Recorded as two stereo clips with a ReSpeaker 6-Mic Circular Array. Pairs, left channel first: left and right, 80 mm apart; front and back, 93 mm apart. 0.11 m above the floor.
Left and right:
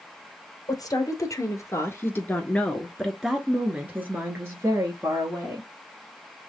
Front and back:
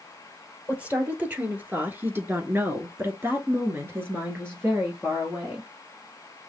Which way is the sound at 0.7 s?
105° left.